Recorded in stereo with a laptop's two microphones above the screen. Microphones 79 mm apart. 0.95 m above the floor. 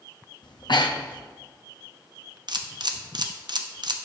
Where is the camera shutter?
65° right (ahead or behind), 0.6 m.